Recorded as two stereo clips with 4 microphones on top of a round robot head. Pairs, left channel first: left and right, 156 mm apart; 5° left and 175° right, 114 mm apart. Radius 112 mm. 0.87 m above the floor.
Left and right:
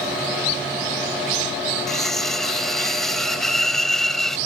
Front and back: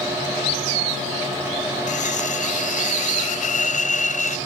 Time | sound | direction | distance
1.9 | cutlery clinking | straight ahead | ?